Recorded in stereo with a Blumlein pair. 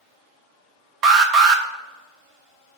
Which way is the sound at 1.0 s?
35° right.